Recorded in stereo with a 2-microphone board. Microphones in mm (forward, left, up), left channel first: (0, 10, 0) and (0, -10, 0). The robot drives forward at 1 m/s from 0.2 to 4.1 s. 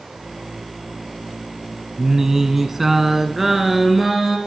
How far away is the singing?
About 0.8 m.